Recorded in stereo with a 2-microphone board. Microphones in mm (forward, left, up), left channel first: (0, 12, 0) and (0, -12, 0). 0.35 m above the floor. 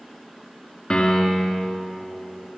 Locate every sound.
0.9 s a piano: 30° left (ahead or behind), 4 m